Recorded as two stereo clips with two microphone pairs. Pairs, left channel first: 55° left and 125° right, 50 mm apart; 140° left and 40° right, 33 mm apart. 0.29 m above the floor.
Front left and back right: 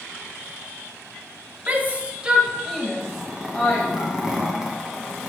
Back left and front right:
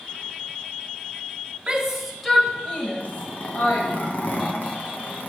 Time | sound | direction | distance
1.7 | a shout | 100° right | 1.1 m
3.0 | a zipper | 160° left | 1.2 m